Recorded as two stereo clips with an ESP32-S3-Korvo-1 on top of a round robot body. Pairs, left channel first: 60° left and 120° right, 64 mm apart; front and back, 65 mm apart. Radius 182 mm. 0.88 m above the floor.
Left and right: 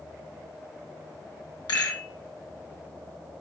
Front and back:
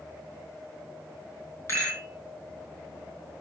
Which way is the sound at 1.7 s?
55° left.